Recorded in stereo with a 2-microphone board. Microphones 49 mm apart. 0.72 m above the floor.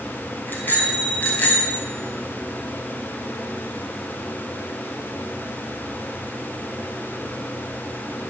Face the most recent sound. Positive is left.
turn(degrees=30)  # may be behind; listen again after turning